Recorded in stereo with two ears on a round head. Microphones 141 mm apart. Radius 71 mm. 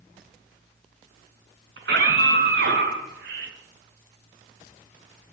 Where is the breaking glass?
No breaking glass in this recording.